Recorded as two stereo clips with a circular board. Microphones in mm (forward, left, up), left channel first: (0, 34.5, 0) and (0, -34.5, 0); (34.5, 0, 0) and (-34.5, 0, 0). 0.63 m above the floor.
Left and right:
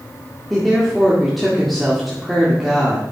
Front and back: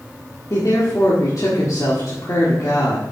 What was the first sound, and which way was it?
A woman speaking, straight ahead.